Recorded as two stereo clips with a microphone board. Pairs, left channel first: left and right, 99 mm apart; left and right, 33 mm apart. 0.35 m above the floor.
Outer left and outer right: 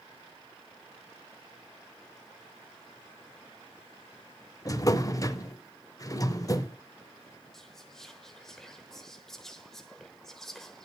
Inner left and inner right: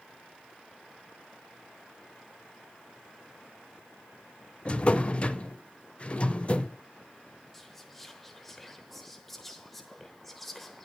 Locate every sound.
4.7 s a drawer: 35° left (ahead or behind), 0.6 m
7.5 s whispering: 5° left (ahead or behind), 0.9 m